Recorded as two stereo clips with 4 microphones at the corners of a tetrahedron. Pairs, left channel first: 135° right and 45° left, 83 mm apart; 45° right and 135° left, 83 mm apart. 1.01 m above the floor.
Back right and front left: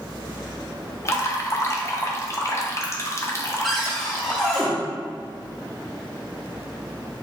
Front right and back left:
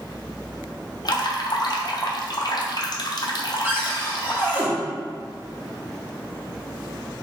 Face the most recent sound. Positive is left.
turn(degrees=135)